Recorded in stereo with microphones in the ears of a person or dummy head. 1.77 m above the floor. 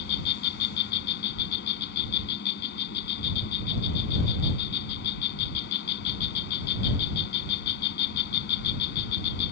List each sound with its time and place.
0.0 s an insect: 70° left (ahead or behind)